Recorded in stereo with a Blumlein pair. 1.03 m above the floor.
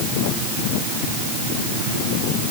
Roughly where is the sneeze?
I don't hear a sneeze.